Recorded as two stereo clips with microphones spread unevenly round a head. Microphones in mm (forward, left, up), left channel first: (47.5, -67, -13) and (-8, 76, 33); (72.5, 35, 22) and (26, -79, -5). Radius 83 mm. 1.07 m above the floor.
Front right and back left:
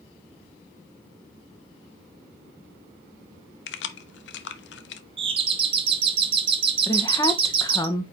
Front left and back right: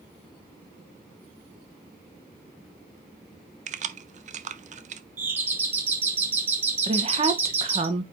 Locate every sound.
3.7 s keys jangling: 85° right, 0.8 m
5.2 s a doorbell: 175° left, 1.3 m
6.9 s a woman speaking: 125° right, 1.1 m